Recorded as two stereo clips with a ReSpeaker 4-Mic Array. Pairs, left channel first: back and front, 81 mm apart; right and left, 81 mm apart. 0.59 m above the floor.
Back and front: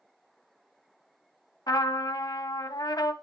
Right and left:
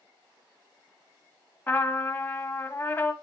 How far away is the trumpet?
About 0.8 m.